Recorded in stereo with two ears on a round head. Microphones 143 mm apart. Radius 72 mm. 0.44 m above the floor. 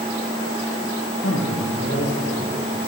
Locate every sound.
1.2 s a man speaking: 80° left, 9 m